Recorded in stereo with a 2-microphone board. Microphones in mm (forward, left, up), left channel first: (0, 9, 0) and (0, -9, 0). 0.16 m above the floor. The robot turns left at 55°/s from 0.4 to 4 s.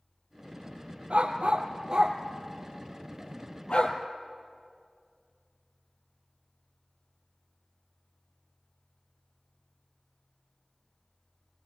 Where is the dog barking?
80° right, 2 m; by 4.0 s 65° left (ahead or behind), 2 m.